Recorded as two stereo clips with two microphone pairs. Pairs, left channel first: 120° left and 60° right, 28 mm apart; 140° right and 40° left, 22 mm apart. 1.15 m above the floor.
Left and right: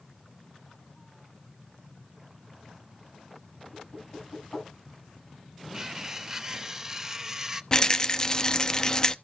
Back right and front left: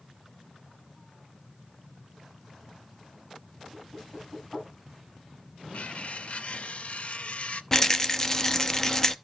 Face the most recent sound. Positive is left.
turn(degrees=165)